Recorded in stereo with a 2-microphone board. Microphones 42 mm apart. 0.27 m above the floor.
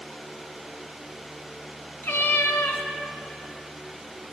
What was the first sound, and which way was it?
A cat meowing, 65° left (ahead or behind).